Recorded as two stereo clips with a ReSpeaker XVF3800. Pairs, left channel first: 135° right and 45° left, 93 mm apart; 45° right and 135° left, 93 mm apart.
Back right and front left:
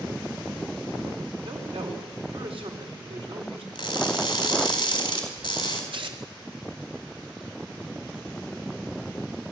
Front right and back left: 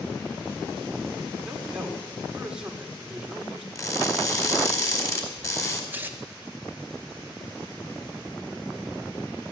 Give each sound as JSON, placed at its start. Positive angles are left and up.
{"t": 1.4, "sound": "a man speaking", "azimuth_deg": 55, "distance_m": 5.0}
{"t": 3.8, "sound": "crushing", "azimuth_deg": -100, "distance_m": 4.0}
{"t": 5.9, "sound": "tearing paper", "azimuth_deg": 65, "distance_m": 2.0}